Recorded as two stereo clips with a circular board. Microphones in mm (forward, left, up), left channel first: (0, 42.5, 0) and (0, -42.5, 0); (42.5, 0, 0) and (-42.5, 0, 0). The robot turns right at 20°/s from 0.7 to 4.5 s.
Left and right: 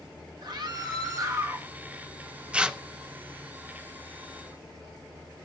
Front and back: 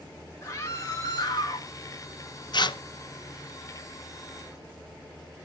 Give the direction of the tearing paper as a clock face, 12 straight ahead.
12 o'clock.